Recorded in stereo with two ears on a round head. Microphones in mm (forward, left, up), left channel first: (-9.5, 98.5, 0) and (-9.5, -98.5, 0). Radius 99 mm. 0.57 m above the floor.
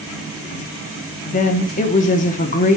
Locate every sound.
1.2 s a woman speaking: 35° left (ahead or behind), 0.9 m